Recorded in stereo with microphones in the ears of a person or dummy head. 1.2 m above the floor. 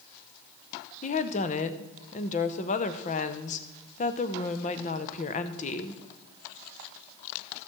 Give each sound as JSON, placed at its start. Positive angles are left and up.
{"t": 1.0, "sound": "a woman speaking", "side_deg": 35, "distance_m": 0.8}